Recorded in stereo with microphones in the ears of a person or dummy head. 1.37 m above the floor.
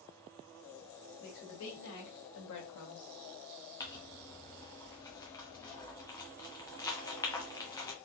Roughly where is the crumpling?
Centre.